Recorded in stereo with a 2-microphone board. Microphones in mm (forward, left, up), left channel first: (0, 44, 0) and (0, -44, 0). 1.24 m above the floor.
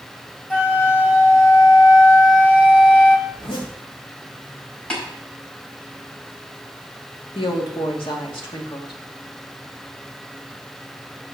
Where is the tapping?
10° left (ahead or behind), 5 m.